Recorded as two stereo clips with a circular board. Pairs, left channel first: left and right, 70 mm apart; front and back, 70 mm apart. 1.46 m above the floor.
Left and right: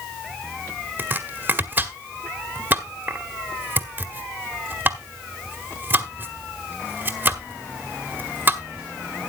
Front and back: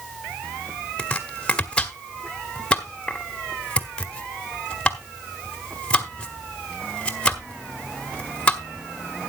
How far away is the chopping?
About 1.2 m.